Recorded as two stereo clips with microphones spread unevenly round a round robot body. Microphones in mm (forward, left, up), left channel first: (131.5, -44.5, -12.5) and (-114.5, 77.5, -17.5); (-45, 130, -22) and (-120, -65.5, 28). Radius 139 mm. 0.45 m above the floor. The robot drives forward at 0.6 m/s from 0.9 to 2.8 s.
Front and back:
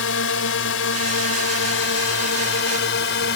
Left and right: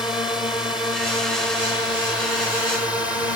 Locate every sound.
0.0 s a drone: 10° right; by 3.4 s 15° right